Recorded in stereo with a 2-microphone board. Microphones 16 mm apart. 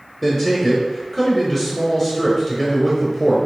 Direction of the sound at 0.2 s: 5° left (ahead or behind).